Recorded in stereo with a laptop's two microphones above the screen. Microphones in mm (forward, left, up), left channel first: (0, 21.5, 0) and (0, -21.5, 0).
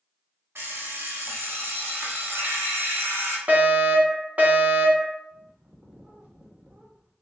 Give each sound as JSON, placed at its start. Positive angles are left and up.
{"t": 0.6, "sound": "an alarm clock", "side_deg": -60, "distance_m": 0.9}
{"t": 3.5, "sound": "a fire alarm", "side_deg": -30, "distance_m": 1.4}
{"t": 5.3, "sound": "a bird", "side_deg": -30, "distance_m": 0.9}